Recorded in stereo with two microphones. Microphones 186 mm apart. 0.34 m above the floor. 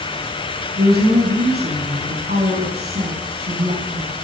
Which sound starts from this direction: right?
A woman speaking, at 0.8 s.